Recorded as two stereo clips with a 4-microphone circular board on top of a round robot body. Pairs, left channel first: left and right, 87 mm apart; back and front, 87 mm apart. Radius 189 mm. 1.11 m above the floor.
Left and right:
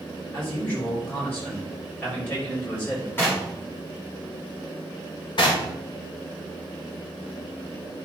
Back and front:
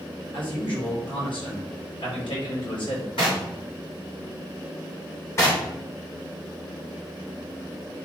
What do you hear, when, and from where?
0.3 s a man speaking: 160° left, 4.5 m
3.2 s knocking: 155° left, 3.5 m
5.4 s knocking: 120° left, 2 m